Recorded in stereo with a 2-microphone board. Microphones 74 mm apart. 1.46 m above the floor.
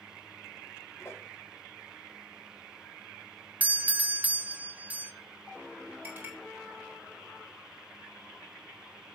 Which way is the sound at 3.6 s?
20° right (ahead or behind).